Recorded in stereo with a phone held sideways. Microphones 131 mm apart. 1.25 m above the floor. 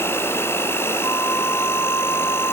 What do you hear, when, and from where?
0.0 s an insect: 20° left (ahead or behind), 0.7 m
1.0 s a flute: 20° left (ahead or behind), 0.8 m